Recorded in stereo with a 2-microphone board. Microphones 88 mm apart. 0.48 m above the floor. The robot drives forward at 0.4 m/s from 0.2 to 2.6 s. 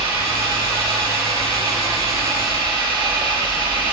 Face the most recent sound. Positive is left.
turn(degrees=-70)  # may be behind; listen again after turning